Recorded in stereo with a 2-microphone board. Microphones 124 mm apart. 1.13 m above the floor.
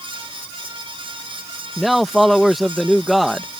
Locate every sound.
1.8 s a man speaking: centre (ahead or behind)